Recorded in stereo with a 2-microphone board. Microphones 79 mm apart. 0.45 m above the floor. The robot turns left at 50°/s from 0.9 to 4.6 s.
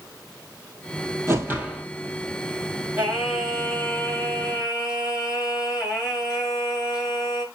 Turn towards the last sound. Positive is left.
turn(degrees=125)